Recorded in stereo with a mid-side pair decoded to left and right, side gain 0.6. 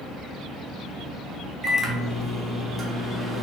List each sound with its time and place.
1.6 s a microwave: 25° right, 1.1 m